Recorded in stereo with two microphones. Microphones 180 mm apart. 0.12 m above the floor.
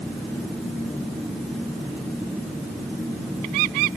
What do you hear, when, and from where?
Only background noise.